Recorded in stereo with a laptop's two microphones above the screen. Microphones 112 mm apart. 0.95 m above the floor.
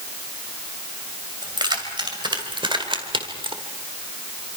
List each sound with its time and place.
1.4 s keys jangling: 40° right (ahead or behind), 3 m; by 3.6 s 50° right (ahead or behind), 1.7 m